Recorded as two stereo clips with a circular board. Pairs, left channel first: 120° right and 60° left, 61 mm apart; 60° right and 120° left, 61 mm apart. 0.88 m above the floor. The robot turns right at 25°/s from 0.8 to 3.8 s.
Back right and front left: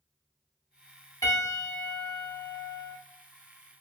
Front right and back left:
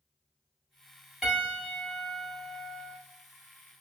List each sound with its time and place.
1.2 s a piano: 160° right, 1.8 m; by 3.0 s 115° right, 1.8 m